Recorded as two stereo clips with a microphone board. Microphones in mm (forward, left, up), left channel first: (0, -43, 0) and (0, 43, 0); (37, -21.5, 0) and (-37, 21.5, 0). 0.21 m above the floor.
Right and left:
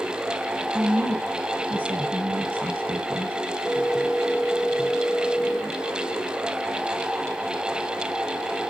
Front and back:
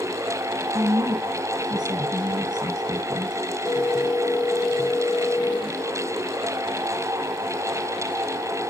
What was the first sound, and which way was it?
A woman speaking, 140° left.